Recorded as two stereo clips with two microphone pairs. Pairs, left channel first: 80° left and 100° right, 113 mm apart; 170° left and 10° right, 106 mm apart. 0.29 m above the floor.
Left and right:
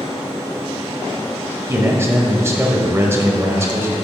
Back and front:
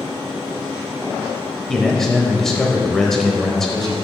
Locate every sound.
1.7 s a man speaking: 105° right, 0.9 m